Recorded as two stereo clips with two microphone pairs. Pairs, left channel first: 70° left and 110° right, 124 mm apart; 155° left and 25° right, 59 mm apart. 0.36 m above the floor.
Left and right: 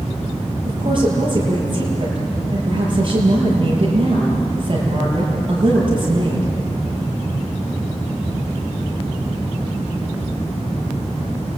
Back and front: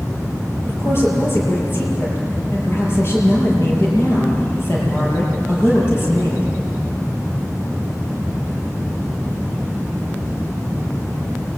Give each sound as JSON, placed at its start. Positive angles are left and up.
{"t": 0.6, "sound": "a woman speaking", "azimuth_deg": -155, "distance_m": 7.5}